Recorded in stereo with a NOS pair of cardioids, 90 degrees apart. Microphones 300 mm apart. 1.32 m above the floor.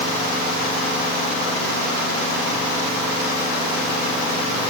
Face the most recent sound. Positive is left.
No sound to turn to.